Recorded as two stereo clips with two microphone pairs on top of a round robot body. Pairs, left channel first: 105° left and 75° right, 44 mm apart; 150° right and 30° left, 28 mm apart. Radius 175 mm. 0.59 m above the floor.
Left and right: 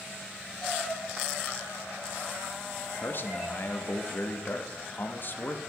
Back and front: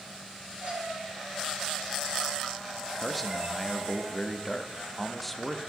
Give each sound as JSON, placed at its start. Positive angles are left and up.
{"t": 0.6, "sound": "a cat meowing", "azimuth_deg": 15, "distance_m": 7.5}
{"t": 3.0, "sound": "a man speaking", "azimuth_deg": 135, "distance_m": 1.4}